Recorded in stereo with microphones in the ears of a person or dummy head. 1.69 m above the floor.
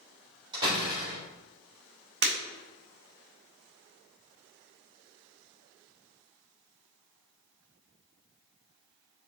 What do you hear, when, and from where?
0.5 s a door slam: 25° right (ahead or behind), 3 m
2.2 s breaking glass: 60° right (ahead or behind), 3 m